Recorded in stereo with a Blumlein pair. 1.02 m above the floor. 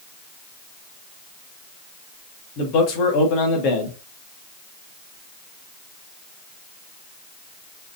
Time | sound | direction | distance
2.6 | a man speaking | 40° left | 1.5 m